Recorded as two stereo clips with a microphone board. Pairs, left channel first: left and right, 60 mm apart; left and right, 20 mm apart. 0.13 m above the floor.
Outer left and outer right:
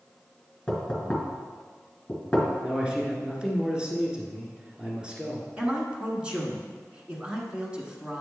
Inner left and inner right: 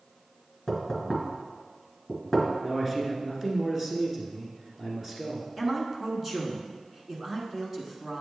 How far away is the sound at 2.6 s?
About 1.4 m.